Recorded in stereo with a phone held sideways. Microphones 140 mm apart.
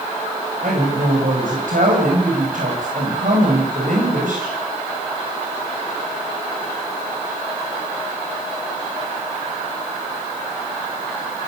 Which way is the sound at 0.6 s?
75° right (ahead or behind).